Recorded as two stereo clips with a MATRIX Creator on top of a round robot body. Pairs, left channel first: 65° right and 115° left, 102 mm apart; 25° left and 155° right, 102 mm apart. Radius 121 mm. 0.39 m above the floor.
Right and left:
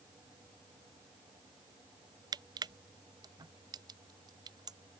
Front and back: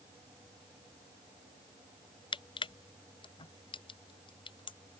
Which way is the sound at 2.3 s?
60° left.